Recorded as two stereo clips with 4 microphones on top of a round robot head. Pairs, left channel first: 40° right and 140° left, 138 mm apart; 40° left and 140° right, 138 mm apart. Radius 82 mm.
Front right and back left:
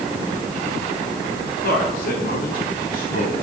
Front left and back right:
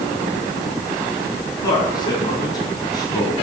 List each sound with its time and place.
1.6 s a man speaking: 25° right, 6 m